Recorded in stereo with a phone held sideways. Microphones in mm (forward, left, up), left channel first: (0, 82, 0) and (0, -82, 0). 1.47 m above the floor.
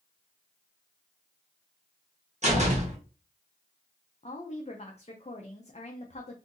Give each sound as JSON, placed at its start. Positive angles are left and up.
{"t": 2.4, "sound": "a door slam", "side_deg": -45, "distance_m": 1.0}
{"t": 4.2, "sound": "a woman speaking", "side_deg": 40, "distance_m": 0.5}